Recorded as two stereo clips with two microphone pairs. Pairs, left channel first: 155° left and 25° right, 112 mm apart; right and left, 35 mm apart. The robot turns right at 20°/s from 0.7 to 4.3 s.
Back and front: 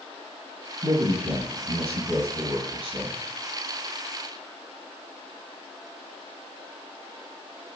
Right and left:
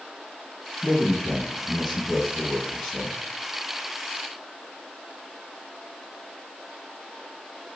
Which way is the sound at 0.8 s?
30° right.